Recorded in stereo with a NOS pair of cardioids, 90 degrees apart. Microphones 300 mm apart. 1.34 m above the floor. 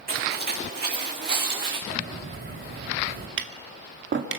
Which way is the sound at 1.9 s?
35° right.